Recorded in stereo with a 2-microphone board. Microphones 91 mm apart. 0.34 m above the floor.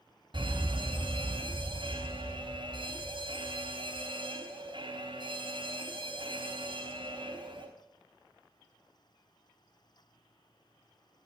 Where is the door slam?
No door slam in this recording.